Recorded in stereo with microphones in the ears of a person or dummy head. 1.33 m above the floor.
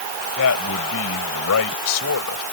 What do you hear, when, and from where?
0.4 s a man speaking: 85° left